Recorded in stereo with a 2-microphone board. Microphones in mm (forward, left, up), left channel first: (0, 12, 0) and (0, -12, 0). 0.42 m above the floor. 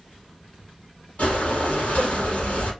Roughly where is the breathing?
Left.